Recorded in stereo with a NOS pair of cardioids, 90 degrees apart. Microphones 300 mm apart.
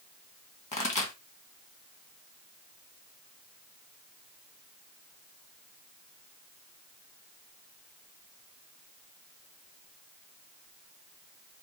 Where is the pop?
25° left, 1.9 m.